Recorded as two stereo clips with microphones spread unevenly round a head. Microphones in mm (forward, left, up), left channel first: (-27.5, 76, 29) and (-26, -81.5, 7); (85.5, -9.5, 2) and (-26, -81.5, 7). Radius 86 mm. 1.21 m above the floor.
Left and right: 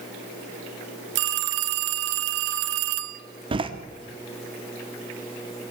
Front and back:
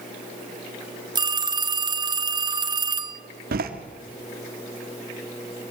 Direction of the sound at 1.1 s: 95° right.